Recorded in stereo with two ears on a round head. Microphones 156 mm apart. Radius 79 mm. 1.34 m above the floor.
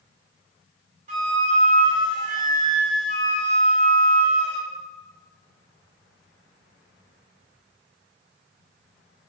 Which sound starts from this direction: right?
A flute, at 1.1 s.